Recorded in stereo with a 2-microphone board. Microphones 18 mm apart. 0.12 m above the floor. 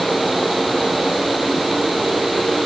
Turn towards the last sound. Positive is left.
No sound to turn to.